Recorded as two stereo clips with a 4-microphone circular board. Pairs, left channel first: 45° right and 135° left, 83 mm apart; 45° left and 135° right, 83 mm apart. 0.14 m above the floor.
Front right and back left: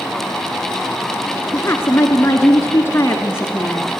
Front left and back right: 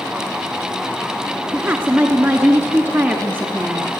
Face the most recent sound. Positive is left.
turn(degrees=-85)